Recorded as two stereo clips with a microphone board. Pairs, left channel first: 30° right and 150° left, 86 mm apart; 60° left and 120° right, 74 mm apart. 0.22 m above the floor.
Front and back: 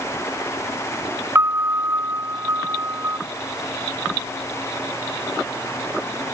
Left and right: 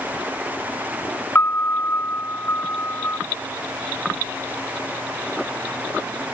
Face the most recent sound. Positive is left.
turn(degrees=105)